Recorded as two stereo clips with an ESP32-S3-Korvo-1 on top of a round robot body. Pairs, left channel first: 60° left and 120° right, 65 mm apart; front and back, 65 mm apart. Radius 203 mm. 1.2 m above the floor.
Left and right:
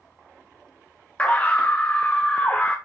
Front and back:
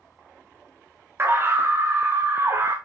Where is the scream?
130° left, 1.1 m.